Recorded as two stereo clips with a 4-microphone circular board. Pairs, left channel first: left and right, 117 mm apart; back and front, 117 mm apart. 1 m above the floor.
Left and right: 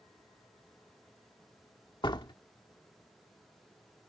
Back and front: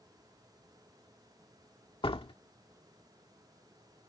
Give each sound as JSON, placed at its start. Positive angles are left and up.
{"t": 2.0, "sound": "a door slam", "azimuth_deg": 140}